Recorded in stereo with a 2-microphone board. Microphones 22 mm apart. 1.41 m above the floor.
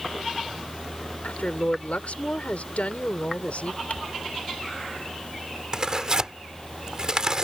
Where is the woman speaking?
70° left (ahead or behind).